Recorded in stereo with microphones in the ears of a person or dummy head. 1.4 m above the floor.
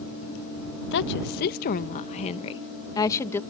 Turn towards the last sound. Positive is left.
turn(degrees=10)  # may be behind; listen again after turning